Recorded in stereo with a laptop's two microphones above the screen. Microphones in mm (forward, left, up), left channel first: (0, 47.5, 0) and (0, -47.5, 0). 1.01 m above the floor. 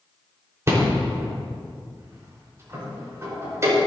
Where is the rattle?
30° right (ahead or behind), 4.5 m.